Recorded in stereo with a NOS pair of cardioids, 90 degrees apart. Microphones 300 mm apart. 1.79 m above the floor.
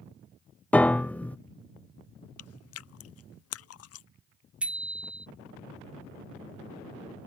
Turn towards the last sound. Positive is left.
turn(degrees=-5)